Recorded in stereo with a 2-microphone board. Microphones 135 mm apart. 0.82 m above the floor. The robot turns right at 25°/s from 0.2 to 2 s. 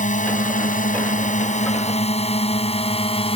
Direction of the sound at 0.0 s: 70° left (ahead or behind).